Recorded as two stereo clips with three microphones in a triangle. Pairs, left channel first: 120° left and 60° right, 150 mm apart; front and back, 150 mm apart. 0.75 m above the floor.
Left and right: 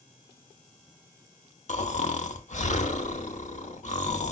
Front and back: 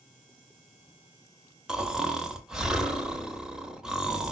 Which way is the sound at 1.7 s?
95° left.